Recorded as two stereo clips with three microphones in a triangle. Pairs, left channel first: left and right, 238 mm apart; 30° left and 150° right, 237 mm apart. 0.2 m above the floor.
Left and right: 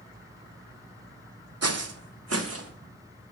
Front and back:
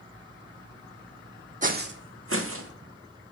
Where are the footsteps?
90° right, 0.6 m; by 2.7 s 120° right, 1.3 m.